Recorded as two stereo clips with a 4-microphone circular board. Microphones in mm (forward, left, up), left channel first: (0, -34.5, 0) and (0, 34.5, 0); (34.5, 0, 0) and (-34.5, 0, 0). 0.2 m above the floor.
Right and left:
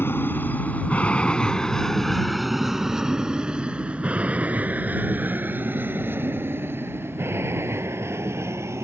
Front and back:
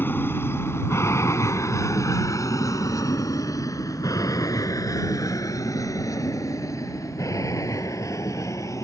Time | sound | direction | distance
0.0 | an aircraft | 45° right | ?